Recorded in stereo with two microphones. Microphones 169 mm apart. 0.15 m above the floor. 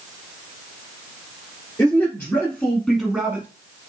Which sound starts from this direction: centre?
A man speaking, at 1.8 s.